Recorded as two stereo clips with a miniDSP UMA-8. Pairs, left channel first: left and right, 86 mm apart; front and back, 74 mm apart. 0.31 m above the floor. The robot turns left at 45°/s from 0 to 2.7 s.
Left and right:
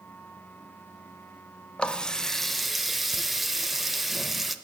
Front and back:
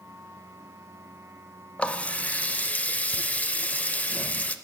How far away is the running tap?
About 0.5 m.